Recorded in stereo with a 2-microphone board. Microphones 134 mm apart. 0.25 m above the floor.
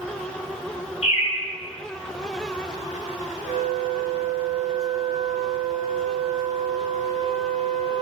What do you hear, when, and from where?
1.0 s a bird: 55° left (ahead or behind), 2.5 m
3.4 s a flute: 40° right (ahead or behind), 1.2 m